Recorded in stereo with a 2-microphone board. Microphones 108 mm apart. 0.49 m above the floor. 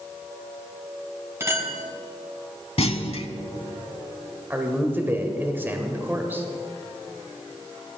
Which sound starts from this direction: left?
A clunk, at 2.8 s.